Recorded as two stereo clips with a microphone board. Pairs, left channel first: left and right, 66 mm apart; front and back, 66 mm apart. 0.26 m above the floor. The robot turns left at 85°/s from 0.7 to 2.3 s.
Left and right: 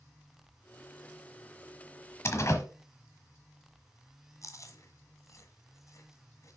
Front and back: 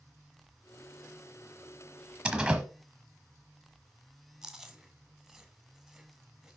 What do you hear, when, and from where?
2.2 s a door slam: 110° left, 1.2 m; by 2.6 s 105° left, 1.2 m
4.4 s chewing: 95° left, 1.2 m